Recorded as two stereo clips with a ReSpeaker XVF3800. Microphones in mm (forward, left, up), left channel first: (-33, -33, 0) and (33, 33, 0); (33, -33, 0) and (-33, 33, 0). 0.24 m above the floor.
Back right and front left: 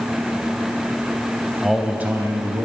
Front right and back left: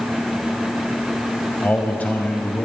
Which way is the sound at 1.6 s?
45° right.